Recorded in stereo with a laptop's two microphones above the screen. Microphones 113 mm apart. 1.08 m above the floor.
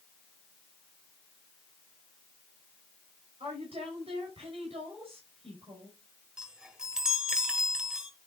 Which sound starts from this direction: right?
A woman speaking, at 3.4 s.